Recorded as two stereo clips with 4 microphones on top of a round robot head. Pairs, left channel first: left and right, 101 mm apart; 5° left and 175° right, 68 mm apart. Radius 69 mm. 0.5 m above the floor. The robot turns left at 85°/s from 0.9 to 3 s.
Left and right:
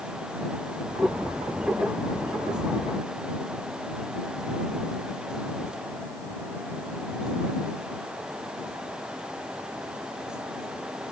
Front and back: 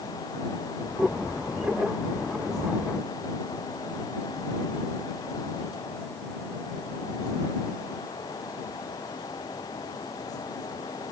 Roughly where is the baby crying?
I don't hear a baby crying.